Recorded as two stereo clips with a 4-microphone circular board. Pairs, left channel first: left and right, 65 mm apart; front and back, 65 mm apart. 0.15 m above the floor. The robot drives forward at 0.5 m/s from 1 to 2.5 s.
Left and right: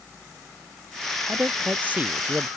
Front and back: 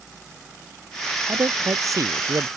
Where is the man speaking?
150° right; by 2.5 s 155° right.